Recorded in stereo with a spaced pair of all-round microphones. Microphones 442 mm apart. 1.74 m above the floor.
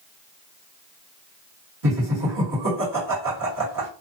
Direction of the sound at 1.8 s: 45° right (ahead or behind).